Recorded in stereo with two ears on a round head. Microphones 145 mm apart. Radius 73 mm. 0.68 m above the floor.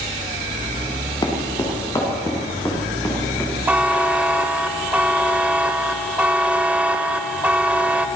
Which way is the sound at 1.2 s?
25° left (ahead or behind).